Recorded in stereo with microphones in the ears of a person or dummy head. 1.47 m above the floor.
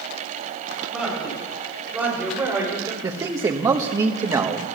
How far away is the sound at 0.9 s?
About 6.5 m.